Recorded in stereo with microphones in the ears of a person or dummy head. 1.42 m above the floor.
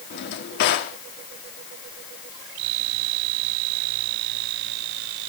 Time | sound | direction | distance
0.1 | a drawer | 55° left (ahead or behind) | 1.8 m